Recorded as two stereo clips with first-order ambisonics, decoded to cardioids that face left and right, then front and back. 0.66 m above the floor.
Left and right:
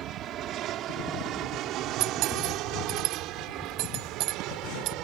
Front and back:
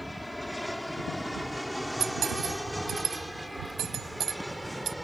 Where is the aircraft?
85° right; by 5.0 s 90° right.